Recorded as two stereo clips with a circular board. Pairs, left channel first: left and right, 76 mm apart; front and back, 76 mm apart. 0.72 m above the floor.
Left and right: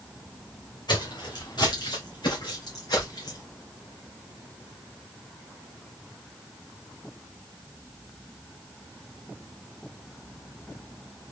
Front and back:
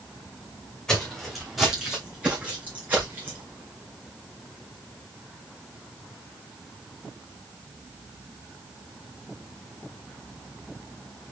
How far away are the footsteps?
About 2 m.